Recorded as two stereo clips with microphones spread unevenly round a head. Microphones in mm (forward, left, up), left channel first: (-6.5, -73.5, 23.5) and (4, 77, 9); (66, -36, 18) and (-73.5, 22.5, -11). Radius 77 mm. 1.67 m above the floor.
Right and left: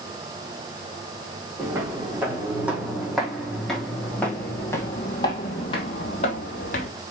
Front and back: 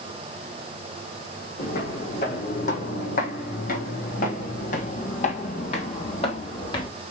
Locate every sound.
1.6 s footsteps: 10° left, 4.5 m; by 6.9 s 70° right, 3 m